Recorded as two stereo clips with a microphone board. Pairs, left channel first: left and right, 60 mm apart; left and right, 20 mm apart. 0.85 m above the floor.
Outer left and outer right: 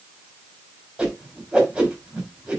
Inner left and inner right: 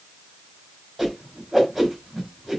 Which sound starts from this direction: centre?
A whoosh, at 1.0 s.